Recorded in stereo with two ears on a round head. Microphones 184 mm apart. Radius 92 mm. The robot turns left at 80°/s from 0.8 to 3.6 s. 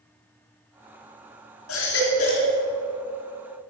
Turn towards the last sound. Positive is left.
turn(degrees=-75)